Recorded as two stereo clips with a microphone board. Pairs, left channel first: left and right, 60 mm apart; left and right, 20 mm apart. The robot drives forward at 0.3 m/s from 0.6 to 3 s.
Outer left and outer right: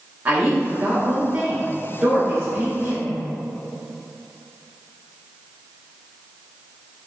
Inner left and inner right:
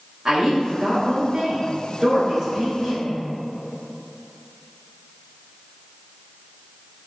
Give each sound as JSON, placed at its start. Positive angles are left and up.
{"t": 0.2, "sound": "a woman speaking", "side_deg": -30, "distance_m": 0.8}